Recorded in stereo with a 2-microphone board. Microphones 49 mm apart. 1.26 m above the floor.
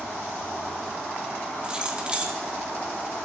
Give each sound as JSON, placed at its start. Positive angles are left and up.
{"t": 1.6, "sound": "keys jangling", "side_deg": -20, "distance_m": 1.3}